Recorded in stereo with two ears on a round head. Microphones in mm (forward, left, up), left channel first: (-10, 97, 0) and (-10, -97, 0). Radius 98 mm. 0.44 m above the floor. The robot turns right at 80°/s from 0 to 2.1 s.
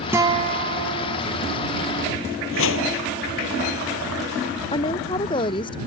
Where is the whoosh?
65° left (ahead or behind).